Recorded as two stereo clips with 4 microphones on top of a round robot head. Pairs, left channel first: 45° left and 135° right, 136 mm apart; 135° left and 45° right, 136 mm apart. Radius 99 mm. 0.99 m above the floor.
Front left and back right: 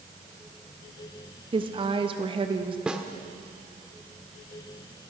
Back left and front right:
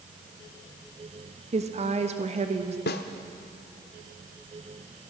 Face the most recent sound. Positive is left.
turn(degrees=140)